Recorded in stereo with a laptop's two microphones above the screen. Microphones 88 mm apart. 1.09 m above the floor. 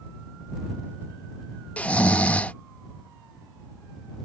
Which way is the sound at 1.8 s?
15° left (ahead or behind).